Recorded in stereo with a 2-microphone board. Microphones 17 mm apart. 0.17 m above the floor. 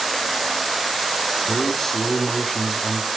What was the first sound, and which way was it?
A man speaking, 20° left (ahead or behind).